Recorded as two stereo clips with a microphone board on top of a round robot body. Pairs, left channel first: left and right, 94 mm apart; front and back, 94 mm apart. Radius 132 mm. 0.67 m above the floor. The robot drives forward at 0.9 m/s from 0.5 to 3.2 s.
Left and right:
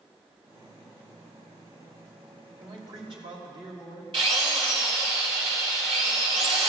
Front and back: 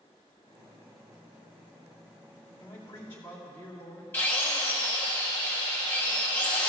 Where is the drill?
70° right, 3 m.